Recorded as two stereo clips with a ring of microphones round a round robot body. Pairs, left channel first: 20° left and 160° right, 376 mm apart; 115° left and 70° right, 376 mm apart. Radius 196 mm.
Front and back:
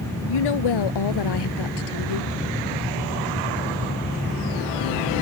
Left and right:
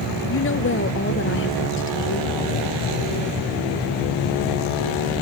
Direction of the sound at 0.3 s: 50° left.